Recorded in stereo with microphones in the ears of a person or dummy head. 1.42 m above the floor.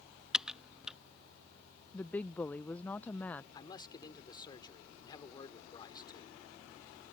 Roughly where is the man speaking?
Left.